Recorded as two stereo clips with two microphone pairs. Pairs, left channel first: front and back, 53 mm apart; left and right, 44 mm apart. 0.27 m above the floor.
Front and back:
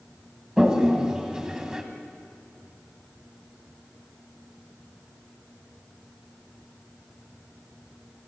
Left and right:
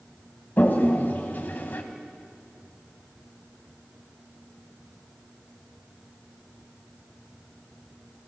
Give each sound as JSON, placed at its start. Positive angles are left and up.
{"t": 0.6, "sound": "a toilet flushing", "azimuth_deg": 110, "distance_m": 1.9}